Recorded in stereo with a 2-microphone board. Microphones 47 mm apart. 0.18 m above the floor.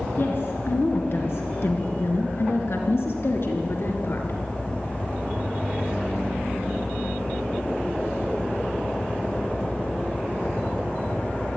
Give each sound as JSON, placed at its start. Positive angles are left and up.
{"t": 0.2, "sound": "a woman speaking", "side_deg": 50, "distance_m": 3.0}